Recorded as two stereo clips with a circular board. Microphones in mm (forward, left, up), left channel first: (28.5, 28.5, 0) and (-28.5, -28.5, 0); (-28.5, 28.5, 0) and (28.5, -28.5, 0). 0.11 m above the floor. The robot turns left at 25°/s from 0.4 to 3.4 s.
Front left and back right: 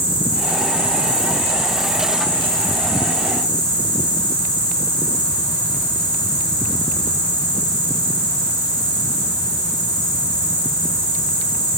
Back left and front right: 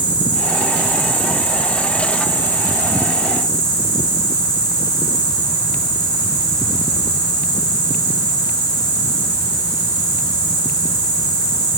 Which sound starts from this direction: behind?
An insect, at 0.0 s.